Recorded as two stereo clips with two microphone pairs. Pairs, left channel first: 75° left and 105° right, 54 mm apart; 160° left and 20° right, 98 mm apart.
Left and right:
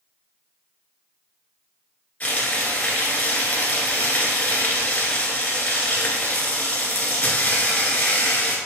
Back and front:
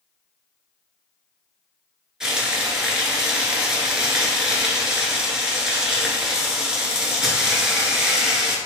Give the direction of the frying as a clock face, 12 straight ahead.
10 o'clock.